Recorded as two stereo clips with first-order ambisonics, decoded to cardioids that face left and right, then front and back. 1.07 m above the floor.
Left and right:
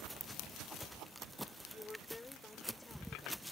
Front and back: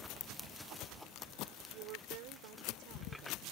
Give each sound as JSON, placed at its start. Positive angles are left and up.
{"t": 1.7, "sound": "a woman speaking", "azimuth_deg": 170}